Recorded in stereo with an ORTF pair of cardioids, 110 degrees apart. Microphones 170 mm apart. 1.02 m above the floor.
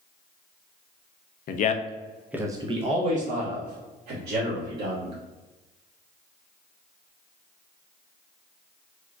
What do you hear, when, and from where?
1.5 s a man speaking: 55° left, 0.6 m; by 5.2 s 60° right, 2 m